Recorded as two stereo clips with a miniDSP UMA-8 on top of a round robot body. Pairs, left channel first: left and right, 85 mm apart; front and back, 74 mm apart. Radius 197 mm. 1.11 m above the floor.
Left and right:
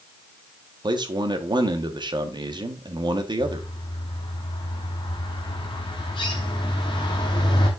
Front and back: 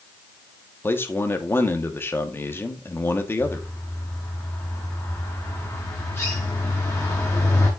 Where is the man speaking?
60° right, 1.4 m.